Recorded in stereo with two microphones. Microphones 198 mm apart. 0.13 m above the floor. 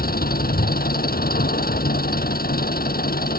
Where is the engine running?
50° left (ahead or behind).